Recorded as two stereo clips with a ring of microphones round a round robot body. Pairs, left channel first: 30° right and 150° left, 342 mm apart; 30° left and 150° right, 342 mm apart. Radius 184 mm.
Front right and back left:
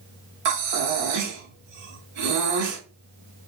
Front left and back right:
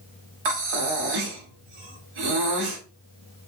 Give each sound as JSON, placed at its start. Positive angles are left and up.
{"t": 0.5, "sound": "breathing", "azimuth_deg": -170, "distance_m": 1.0}